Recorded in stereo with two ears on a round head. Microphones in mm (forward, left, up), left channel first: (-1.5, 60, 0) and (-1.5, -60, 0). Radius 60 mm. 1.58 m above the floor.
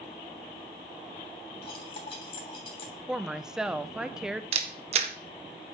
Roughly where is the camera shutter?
Right.